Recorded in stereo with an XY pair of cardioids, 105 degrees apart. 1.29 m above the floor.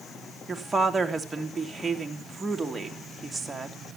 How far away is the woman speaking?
About 3 m.